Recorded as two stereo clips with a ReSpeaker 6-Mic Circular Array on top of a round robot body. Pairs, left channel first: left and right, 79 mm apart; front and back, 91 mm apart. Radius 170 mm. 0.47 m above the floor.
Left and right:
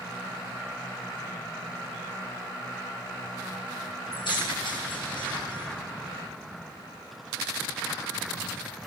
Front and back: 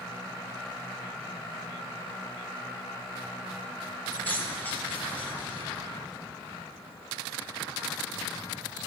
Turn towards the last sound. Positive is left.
turn(degrees=70)